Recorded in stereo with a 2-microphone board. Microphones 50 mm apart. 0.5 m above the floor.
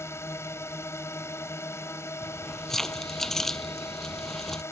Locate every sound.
0.0 s a drone: 60° left (ahead or behind)
2.2 s keys jangling: 5° left (ahead or behind)